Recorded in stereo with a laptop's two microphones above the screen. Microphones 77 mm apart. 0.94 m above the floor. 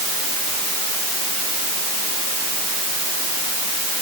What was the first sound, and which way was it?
Only background noise.